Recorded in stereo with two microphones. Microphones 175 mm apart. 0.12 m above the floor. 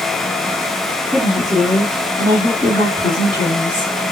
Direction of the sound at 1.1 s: 10° right (ahead or behind).